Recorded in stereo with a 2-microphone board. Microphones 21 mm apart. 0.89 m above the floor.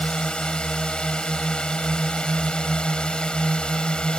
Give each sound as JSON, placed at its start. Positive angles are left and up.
{"t": 0.0, "sound": "a drone", "side_deg": 45}